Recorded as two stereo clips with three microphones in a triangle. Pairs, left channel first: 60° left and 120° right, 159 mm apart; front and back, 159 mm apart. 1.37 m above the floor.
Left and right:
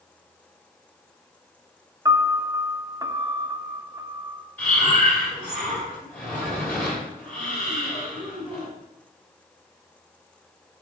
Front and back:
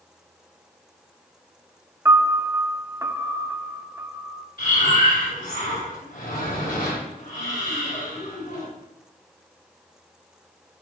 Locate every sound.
2.0 s a piano: 140° right, 0.6 m
4.6 s breathing: 20° right, 4 m